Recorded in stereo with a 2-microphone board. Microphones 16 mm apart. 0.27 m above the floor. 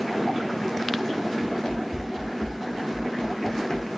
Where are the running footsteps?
70° left (ahead or behind), 2.5 m.